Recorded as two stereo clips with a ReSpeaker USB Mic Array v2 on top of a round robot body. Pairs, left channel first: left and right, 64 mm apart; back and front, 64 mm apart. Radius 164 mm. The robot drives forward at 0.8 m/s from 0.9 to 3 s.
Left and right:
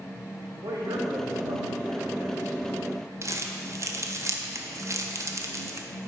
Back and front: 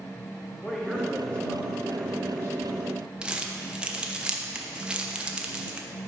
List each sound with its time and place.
0.6 s a man speaking: 95° right, 2.5 m; by 2.6 s 125° right, 3 m
3.2 s crumpling: 70° right, 1.2 m